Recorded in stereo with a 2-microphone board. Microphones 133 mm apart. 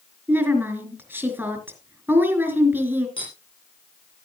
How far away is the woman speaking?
About 4 m.